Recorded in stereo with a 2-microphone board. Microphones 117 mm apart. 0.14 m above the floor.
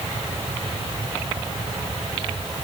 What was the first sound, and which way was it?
Only background noise.